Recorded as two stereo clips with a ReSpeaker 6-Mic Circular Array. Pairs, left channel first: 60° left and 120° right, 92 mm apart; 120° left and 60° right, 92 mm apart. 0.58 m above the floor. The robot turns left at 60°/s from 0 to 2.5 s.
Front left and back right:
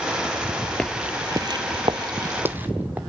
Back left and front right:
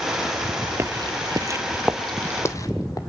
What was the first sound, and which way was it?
Footsteps, 15° right.